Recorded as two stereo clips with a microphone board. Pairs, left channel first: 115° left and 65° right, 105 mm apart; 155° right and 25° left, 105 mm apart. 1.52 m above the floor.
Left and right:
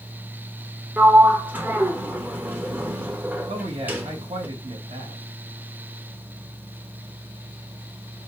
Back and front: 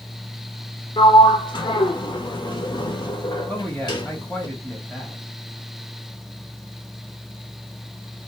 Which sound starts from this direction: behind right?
A sliding door, at 1.0 s.